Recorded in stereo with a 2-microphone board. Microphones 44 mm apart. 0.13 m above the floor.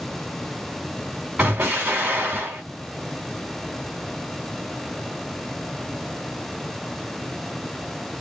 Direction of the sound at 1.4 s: 35° right (ahead or behind).